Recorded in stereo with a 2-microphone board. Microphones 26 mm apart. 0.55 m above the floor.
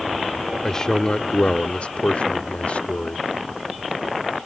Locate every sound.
0.6 s a man speaking: 25° left (ahead or behind); by 3.3 s 50° left (ahead or behind)